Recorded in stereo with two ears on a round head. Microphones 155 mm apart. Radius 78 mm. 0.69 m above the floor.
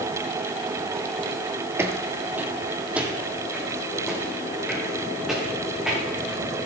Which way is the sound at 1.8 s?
15° right (ahead or behind).